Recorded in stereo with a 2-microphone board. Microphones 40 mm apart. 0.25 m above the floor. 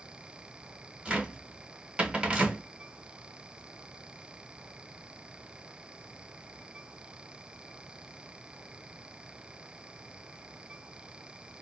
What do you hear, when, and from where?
1.1 s a cupboard door: 25° right (ahead or behind), 0.9 m